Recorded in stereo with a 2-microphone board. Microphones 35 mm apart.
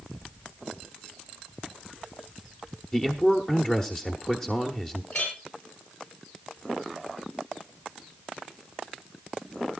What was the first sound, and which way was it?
A man speaking, 20° left (ahead or behind).